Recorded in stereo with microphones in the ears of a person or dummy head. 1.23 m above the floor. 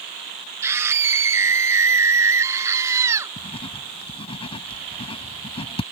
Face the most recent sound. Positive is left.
turn(degrees=25)  # may be behind; listen again after turning